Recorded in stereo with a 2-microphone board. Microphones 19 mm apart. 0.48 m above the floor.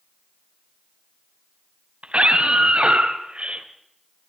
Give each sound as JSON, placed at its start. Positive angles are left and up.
{"t": 2.0, "sound": "a scream", "side_deg": -75, "distance_m": 4.0}